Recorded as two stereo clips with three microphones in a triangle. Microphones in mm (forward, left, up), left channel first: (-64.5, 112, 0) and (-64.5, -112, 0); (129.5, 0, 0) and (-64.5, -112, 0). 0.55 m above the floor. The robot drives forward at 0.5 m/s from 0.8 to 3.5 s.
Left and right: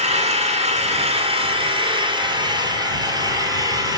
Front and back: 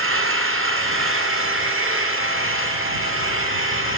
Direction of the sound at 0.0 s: 150° right.